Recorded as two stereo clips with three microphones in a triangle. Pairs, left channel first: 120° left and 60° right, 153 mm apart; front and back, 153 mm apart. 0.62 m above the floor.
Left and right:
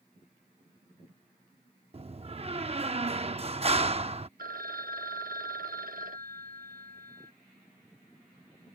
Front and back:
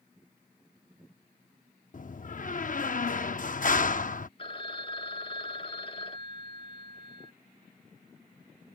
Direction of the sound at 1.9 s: 20° right.